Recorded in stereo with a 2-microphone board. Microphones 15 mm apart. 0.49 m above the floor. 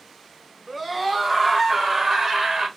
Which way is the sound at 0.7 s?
20° right (ahead or behind).